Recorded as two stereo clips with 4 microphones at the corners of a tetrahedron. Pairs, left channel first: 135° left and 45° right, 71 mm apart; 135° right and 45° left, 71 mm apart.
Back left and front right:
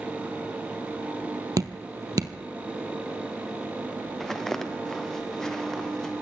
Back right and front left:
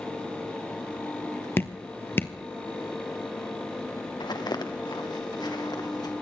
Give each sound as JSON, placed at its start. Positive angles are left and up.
{"t": 1.6, "sound": "dripping", "azimuth_deg": -75, "distance_m": 1.1}
{"t": 4.2, "sound": "footsteps", "azimuth_deg": -140, "distance_m": 1.9}